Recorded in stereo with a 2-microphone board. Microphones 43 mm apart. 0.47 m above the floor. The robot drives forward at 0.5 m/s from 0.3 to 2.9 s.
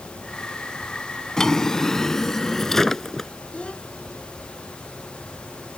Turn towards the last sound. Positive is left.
turn(degrees=25)  # may be behind; listen again after turning